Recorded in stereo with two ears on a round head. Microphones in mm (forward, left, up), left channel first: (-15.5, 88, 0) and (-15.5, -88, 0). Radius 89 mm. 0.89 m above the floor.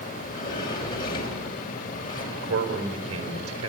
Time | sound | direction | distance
0.1 | a sliding door | 20° left (ahead or behind) | 4 m
2.3 | a man speaking | 80° right | 4.5 m